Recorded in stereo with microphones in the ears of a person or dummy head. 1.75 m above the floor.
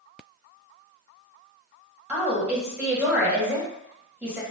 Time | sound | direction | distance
2.1 | a woman speaking | 5° right (ahead or behind) | 1.6 m